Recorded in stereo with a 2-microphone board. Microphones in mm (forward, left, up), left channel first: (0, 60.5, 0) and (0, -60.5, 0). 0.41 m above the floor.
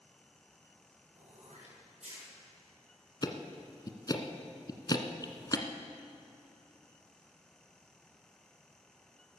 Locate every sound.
1.1 s throat clearing: 75° right (ahead or behind), 6.5 m
3.2 s ticking: 35° left (ahead or behind), 1.2 m